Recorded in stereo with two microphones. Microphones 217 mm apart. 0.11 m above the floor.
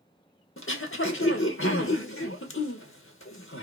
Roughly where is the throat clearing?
Left.